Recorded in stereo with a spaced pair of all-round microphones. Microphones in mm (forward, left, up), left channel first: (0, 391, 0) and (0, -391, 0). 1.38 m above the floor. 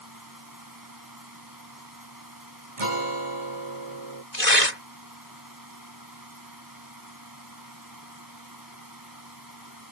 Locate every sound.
0.0 s a fan: 25° right (ahead or behind)
2.8 s a guitar: 40° right (ahead or behind)
4.3 s tearing paper: 60° left (ahead or behind)